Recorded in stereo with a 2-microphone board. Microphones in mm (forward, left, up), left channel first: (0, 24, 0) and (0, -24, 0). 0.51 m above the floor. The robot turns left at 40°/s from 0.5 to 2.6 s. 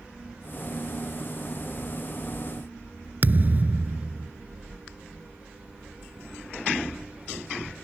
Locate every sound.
3.2 s a thud: 40° right (ahead or behind)